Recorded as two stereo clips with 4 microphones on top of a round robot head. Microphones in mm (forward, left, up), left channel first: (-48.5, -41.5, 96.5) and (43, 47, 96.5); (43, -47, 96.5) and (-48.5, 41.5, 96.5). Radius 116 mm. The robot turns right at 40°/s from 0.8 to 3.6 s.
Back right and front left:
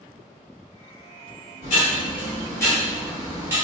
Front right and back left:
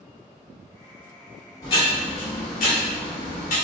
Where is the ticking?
105° right, 1.5 m; by 3.5 s 30° right, 1.5 m.